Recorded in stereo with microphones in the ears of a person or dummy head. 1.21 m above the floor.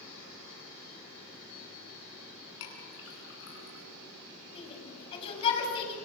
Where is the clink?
70° left (ahead or behind), 8.5 m.